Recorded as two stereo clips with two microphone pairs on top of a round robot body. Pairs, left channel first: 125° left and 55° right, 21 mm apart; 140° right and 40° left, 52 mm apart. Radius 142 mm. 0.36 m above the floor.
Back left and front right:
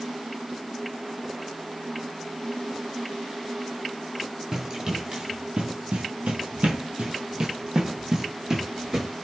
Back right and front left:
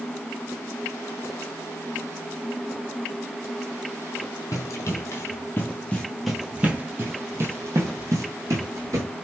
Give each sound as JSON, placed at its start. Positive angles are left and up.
{"t": 4.5, "sound": "running footsteps", "azimuth_deg": -120, "distance_m": 1.0}